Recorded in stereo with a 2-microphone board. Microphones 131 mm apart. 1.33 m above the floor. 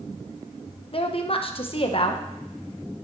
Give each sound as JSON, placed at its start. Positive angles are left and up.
{"t": 0.9, "sound": "a woman speaking", "side_deg": 50, "distance_m": 0.9}